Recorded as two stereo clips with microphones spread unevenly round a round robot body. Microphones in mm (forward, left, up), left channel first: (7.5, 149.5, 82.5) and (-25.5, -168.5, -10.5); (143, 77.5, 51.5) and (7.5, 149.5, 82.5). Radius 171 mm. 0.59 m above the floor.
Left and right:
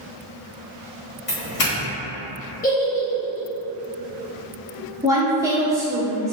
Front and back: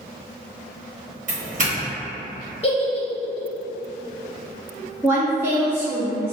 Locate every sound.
1.3 s a doorbell: 150° left, 1.3 m
2.6 s a giggle: 10° left, 0.8 m
5.0 s a woman speaking: 125° right, 0.6 m